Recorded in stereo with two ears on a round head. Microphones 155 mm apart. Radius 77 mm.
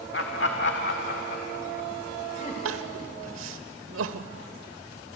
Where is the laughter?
65° left (ahead or behind), 1.6 m; by 2.5 s 40° left (ahead or behind), 3 m.